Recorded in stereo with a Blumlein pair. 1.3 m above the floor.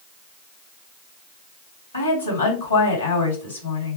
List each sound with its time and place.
1.9 s a woman speaking: 70° left, 2.5 m